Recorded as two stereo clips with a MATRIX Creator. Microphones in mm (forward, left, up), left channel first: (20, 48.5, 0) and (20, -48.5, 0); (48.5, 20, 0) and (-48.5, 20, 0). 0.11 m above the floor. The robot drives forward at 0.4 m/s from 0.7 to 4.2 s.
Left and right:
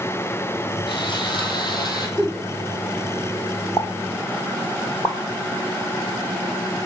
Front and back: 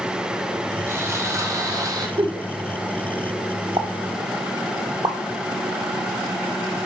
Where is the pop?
145° left, 0.7 m; by 5.2 s 150° left, 0.9 m.